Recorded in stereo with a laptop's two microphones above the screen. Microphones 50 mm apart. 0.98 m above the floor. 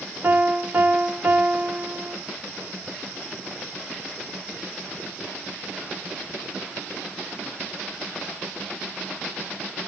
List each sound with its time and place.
0.2 s a piano: 40° right (ahead or behind), 1.7 m